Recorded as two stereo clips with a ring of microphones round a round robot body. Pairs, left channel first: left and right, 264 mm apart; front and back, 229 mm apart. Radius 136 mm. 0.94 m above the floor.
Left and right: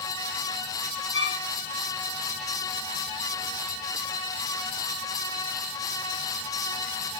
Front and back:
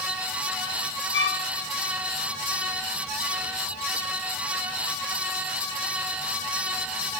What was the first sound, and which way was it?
A violin, 40° left.